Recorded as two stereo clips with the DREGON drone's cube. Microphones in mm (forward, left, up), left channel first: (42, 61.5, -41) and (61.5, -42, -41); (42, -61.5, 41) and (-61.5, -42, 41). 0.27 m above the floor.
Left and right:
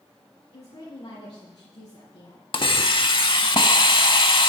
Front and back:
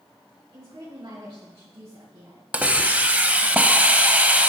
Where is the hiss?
100° left, 0.6 m.